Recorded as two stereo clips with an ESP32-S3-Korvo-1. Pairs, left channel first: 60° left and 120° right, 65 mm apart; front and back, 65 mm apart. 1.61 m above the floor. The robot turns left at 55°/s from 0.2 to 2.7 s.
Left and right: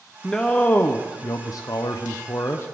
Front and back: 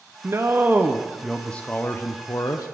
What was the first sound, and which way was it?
A man speaking, 145° left.